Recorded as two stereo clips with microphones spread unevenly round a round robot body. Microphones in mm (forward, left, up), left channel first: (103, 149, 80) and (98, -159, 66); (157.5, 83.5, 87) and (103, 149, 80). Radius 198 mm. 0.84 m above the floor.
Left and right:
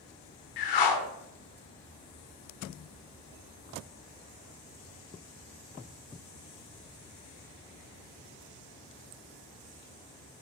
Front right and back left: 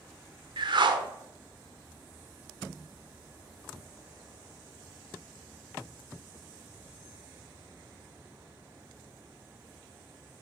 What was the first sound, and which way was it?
A whoosh, 110° left.